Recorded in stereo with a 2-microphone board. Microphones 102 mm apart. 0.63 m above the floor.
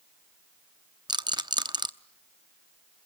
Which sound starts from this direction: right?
A rattle, at 1.1 s.